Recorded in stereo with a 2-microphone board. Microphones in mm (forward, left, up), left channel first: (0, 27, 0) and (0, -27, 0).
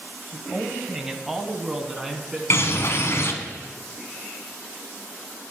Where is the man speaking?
15° right (ahead or behind), 1.0 m; by 2.4 s 5° right (ahead or behind), 2.0 m.